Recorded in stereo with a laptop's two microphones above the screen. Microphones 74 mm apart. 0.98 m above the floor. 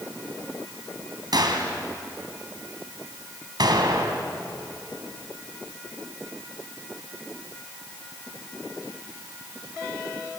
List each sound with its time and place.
1.3 s a gunshot: 70° right (ahead or behind), 3 m